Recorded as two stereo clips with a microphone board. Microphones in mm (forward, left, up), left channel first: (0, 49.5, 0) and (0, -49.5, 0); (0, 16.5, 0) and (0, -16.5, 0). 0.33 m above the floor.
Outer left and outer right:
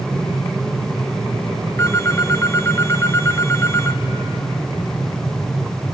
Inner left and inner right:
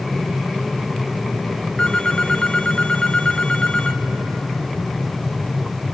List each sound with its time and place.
1.8 s a phone ringing: 25° left (ahead or behind), 1.2 m